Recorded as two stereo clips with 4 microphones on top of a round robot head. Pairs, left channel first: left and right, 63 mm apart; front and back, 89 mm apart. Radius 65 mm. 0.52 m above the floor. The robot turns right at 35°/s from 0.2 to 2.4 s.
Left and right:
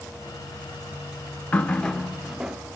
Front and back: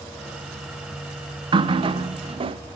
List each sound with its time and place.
1.5 s a running tap: 155° left, 0.6 m; by 2.6 s 170° right, 0.6 m